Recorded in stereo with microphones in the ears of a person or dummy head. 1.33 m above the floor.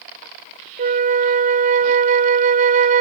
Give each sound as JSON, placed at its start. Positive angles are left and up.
{"t": 0.8, "sound": "a flute", "side_deg": -45}